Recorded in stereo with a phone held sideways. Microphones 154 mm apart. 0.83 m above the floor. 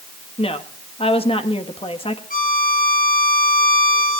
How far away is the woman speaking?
About 1.4 m.